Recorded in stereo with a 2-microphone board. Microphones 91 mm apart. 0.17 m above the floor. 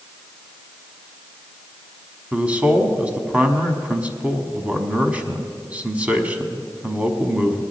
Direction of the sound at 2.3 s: 15° right (ahead or behind).